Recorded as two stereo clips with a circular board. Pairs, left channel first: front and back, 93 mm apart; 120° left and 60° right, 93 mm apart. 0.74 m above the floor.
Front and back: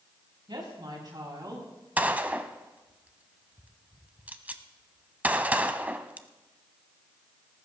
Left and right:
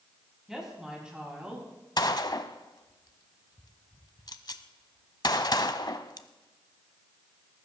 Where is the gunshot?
115° left, 0.8 m.